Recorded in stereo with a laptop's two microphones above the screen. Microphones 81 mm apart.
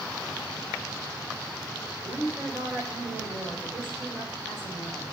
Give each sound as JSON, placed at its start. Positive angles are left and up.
{"t": 2.0, "sound": "a woman speaking", "side_deg": -70, "distance_m": 3.5}